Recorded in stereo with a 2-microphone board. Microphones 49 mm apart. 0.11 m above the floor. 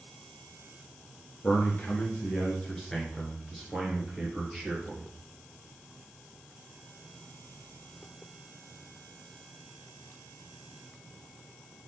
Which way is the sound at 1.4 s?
35° left (ahead or behind).